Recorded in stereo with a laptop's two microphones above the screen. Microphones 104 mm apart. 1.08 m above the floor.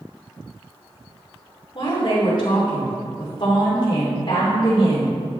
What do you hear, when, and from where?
1.8 s a woman speaking: 45° left (ahead or behind), 3 m